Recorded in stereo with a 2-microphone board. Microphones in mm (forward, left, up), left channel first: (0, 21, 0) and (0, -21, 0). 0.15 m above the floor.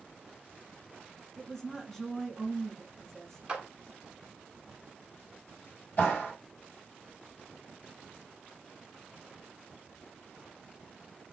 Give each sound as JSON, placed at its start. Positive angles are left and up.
{"t": 1.4, "sound": "a woman speaking", "side_deg": 5, "distance_m": 1.1}
{"t": 3.5, "sound": "a clap", "side_deg": -20, "distance_m": 1.2}
{"t": 6.0, "sound": "a clap", "side_deg": 50, "distance_m": 4.0}